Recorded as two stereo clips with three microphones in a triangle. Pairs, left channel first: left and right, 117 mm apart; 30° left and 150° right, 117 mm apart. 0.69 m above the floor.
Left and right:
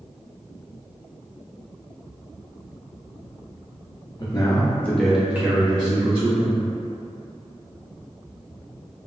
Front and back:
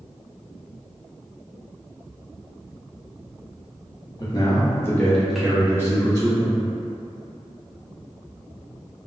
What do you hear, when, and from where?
4.2 s a man speaking: 60° left, 0.7 m; by 6.6 s 105° right, 0.9 m